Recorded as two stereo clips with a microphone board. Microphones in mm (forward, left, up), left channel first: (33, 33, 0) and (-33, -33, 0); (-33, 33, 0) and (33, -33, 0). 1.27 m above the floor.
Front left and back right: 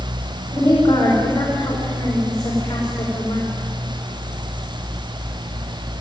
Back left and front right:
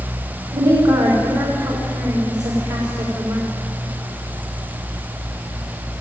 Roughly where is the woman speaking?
Ahead.